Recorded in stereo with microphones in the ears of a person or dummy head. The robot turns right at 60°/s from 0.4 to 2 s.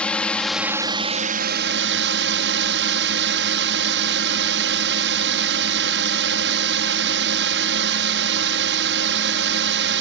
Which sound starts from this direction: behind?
A drone, at 0.0 s.